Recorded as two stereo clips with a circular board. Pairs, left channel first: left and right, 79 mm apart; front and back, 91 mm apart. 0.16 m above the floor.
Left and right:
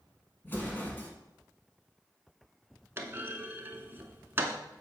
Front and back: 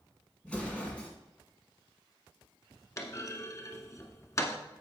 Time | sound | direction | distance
0.4 | an explosion | 65° left | 1.7 m
3.0 | a clunk | 40° right | 0.8 m